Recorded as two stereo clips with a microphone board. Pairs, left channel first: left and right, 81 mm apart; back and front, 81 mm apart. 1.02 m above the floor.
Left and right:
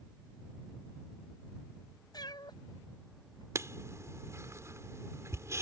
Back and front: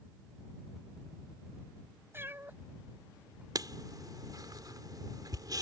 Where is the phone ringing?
No phone ringing in this recording.